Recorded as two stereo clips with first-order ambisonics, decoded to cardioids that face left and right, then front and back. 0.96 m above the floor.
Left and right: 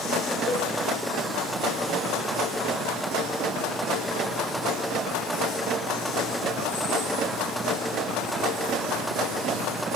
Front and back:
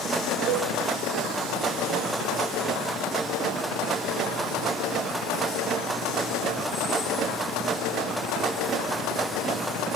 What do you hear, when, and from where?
0.5 s a cowbell: 150° left, 1.7 m